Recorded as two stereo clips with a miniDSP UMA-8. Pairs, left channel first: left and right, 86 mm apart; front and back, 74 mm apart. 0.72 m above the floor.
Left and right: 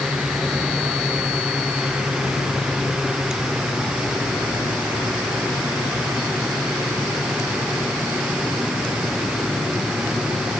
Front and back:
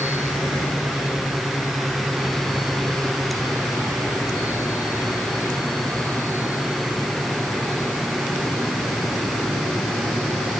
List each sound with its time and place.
Only background noise.